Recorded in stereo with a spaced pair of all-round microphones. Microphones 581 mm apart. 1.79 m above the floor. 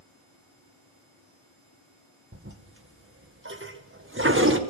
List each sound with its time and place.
2.3 s a toilet flushing: 20° right (ahead or behind), 2.0 m